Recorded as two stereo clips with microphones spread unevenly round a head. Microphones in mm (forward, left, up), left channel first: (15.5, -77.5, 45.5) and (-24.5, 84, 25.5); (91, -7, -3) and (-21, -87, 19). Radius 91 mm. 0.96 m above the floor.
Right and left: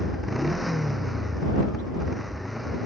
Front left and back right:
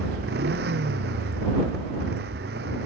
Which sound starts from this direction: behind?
A motorcycle, at 0.0 s.